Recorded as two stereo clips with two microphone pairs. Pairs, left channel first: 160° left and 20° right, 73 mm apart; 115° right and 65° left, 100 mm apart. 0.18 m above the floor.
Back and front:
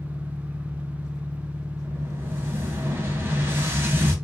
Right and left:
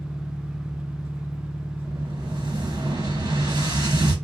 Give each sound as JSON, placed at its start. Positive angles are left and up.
{"t": 0.0, "sound": "an engine running", "azimuth_deg": 130, "distance_m": 0.8}
{"t": 1.8, "sound": "an explosion", "azimuth_deg": 30, "distance_m": 1.1}